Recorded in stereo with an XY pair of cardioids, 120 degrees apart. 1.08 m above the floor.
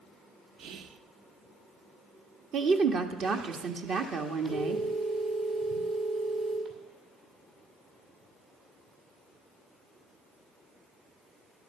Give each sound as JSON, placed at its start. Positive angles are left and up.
{"t": 0.6, "sound": "whispering", "azimuth_deg": -65, "distance_m": 0.8}
{"t": 2.5, "sound": "a woman speaking", "azimuth_deg": -55, "distance_m": 1.3}
{"t": 4.5, "sound": "a phone ringing", "azimuth_deg": -65, "distance_m": 5.5}